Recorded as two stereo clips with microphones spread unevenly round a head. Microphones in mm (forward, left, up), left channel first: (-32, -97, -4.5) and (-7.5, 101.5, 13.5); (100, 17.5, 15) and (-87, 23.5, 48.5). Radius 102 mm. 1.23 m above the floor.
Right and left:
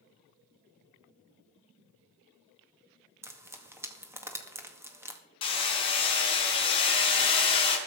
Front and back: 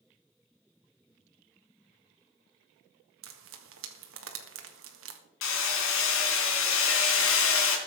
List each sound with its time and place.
3.2 s frying: 160° left, 2.0 m
5.4 s hammering: 30° right, 3.5 m